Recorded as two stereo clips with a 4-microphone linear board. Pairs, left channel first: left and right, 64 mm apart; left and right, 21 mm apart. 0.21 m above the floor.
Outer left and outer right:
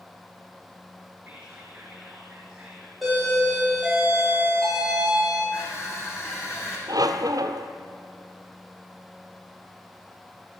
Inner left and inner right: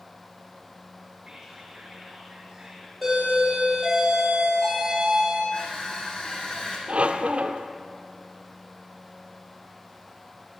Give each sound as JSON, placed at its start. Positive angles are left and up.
{"t": 1.2, "sound": "whispering", "side_deg": -20, "distance_m": 3.5}
{"t": 3.0, "sound": "a doorbell", "side_deg": 0, "distance_m": 10.0}
{"t": 5.5, "sound": "crushing", "side_deg": 50, "distance_m": 6.0}
{"t": 6.9, "sound": "a squeak", "side_deg": -70, "distance_m": 1.4}